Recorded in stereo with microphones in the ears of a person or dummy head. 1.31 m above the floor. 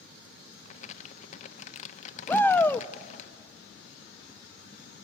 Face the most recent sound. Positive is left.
turn(degrees=5)  # may be behind; listen again after turning